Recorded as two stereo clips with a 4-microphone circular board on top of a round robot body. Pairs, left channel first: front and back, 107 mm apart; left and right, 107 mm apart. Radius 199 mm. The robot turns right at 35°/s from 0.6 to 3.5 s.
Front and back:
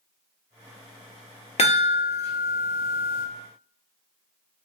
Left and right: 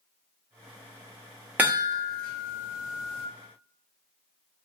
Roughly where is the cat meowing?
No cat meowing in this recording.